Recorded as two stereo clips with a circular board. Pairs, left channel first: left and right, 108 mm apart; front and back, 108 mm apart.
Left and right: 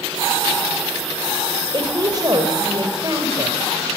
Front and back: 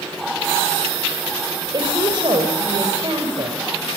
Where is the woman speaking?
140° right, 3.5 m.